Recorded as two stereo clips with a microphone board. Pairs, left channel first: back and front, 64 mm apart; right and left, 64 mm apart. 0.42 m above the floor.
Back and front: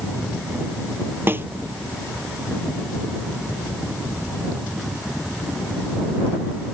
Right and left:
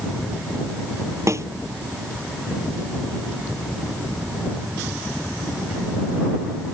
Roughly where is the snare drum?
Ahead left.